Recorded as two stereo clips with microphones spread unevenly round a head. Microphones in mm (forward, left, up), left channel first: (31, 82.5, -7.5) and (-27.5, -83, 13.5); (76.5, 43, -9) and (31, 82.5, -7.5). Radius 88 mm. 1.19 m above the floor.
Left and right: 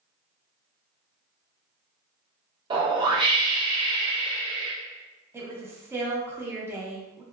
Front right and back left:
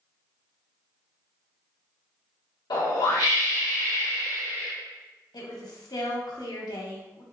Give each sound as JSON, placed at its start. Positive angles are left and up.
{"t": 2.7, "sound": "a whoosh", "azimuth_deg": -45, "distance_m": 0.7}
{"t": 5.3, "sound": "a woman speaking", "azimuth_deg": -30, "distance_m": 0.9}